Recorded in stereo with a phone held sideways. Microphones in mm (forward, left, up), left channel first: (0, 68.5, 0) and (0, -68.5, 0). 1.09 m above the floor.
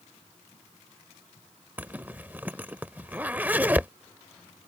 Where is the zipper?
15° right (ahead or behind).